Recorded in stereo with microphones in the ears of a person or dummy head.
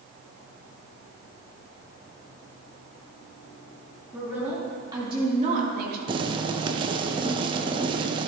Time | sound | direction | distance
4.1 | a woman speaking | 5° right (ahead or behind) | 3.5 m
6.1 | boiling | 25° right (ahead or behind) | 0.6 m